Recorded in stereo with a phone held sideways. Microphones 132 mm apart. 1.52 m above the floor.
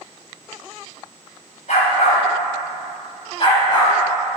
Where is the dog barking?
65° left (ahead or behind), 2.5 m; by 4.4 s 30° left (ahead or behind), 3.5 m.